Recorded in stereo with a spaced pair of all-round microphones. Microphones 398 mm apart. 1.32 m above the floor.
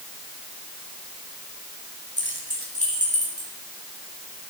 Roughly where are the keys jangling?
Left.